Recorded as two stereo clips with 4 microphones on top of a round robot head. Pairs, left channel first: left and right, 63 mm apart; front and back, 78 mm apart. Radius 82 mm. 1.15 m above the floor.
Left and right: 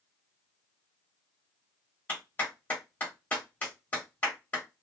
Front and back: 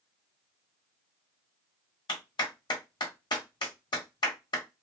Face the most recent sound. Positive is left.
turn(degrees=20)